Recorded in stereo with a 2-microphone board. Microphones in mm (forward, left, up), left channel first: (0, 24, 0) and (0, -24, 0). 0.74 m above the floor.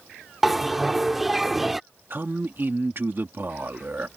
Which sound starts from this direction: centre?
A bell, at 0.4 s.